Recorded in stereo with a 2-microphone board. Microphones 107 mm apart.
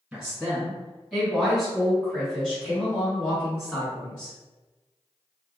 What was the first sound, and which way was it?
A woman speaking, 5° right (ahead or behind).